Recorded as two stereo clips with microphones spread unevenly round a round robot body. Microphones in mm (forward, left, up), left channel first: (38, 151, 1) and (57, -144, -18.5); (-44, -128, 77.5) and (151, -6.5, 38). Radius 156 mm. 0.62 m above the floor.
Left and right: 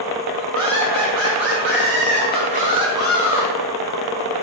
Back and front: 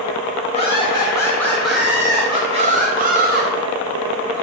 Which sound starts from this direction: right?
Laughter, at 0.5 s.